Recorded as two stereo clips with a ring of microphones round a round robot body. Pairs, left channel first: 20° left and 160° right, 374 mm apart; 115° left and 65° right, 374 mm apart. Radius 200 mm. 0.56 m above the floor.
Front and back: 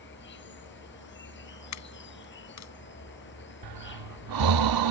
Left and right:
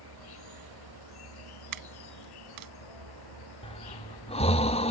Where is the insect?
85° left.